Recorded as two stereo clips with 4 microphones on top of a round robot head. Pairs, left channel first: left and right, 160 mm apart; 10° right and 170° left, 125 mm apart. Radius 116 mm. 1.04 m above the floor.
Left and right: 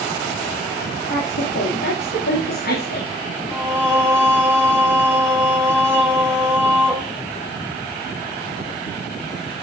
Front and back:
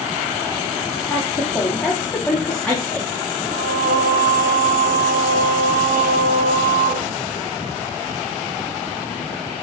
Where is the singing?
170° right, 3 m.